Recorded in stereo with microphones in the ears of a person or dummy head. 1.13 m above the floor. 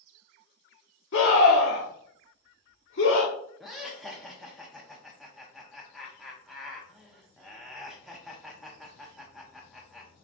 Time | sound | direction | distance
1.1 | a scream | 60° left (ahead or behind) | 1.0 m
3.6 | laughter | centre (ahead or behind) | 0.7 m